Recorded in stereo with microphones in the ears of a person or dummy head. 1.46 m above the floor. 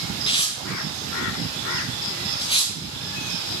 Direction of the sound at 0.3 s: 30° left (ahead or behind).